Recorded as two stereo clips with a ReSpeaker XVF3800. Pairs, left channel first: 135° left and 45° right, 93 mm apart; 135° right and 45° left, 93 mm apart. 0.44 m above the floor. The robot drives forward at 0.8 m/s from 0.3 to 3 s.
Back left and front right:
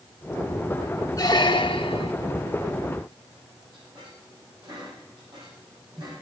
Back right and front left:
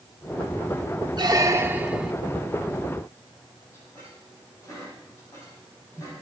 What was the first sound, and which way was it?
A squeak, 85° left.